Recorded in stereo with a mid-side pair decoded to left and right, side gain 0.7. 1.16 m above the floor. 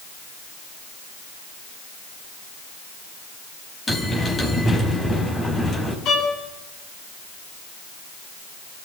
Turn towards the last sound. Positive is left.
turn(degrees=55)